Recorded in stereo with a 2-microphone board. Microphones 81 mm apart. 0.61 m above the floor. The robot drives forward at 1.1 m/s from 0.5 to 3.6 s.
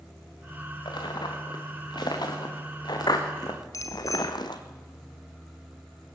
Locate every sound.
0.8 s footsteps: 70° left (ahead or behind), 5 m; by 4.6 s 65° left (ahead or behind), 1.9 m
3.7 s a bicycle bell: 45° left (ahead or behind), 2 m